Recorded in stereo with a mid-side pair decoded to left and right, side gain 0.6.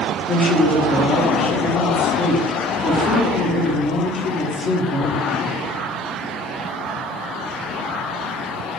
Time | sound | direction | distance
0.3 | a woman speaking | 30° left | 1.2 m